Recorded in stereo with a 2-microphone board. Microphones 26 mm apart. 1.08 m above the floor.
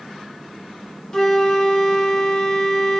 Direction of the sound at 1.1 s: 25° left (ahead or behind).